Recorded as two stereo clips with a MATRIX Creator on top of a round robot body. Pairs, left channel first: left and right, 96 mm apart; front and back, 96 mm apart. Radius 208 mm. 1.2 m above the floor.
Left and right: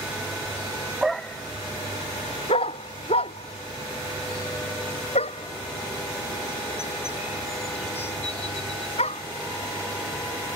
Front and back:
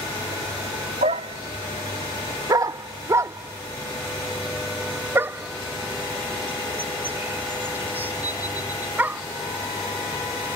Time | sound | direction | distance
1.0 | a dog barking | 175° right | ?